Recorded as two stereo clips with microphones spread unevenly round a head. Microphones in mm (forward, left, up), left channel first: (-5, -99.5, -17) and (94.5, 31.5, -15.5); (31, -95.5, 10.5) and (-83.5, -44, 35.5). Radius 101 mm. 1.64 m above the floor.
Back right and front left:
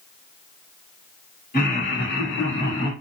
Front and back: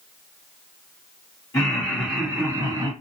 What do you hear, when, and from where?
1.5 s laughter: 90° right, 1.6 m; by 2.9 s 155° right, 1.4 m